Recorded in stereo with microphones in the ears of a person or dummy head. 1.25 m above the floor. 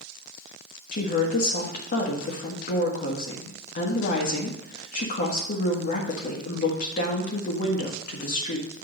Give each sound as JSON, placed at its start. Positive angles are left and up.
{"t": 0.9, "sound": "a woman speaking", "side_deg": 45, "distance_m": 1.5}